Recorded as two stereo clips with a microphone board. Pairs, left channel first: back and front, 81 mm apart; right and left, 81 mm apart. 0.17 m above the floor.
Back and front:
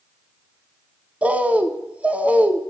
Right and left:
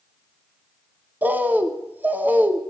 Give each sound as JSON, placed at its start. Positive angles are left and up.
{"t": 1.2, "sound": "a bird", "azimuth_deg": 55, "distance_m": 0.7}